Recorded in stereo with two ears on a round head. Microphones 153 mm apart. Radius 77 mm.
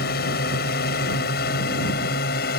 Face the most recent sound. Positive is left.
turn(degrees=60)  # may be behind; listen again after turning